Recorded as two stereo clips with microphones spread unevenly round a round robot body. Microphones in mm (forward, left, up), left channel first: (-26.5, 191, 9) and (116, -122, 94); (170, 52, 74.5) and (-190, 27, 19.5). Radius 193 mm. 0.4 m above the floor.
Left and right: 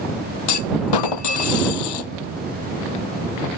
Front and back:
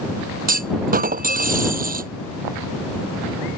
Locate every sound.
0.5 s a clunk: 115° left